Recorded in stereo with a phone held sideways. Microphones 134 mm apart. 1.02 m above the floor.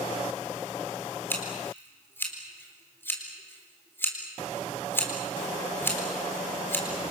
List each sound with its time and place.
1.3 s scissors: 15° left (ahead or behind), 4 m